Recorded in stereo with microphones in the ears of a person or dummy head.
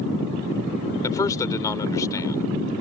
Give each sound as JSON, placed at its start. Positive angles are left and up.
{"t": 1.0, "sound": "a man speaking", "side_deg": 20}